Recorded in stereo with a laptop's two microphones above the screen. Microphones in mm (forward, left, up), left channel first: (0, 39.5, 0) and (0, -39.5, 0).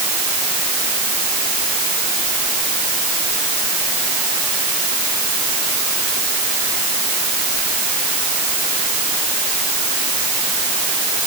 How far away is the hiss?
No hiss in this recording.